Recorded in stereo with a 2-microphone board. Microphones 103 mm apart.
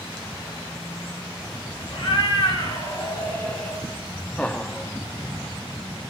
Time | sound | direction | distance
1.9 | a cat meowing | 60° left (ahead or behind) | 2.5 m
4.4 | laughter | 10° left (ahead or behind) | 0.5 m